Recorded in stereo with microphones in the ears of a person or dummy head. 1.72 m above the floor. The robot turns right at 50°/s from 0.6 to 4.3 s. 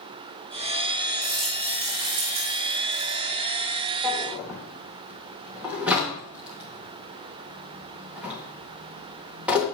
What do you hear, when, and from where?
1.2 s a rattle: 170° left, 2.5 m; by 3.2 s 95° right, 2.5 m
4.0 s a drawer: centre (ahead or behind), 1.5 m; by 9.6 s 10° right (ahead or behind), 1.5 m